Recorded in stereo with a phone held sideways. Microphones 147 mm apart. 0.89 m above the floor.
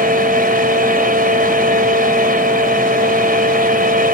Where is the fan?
75° right (ahead or behind).